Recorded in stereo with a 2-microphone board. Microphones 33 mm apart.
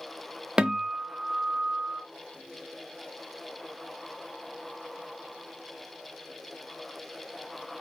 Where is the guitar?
30° right (ahead or behind), 0.7 m.